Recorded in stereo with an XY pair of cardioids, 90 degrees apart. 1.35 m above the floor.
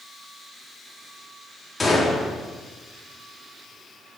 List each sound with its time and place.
1.8 s a gunshot: 15° left, 3.5 m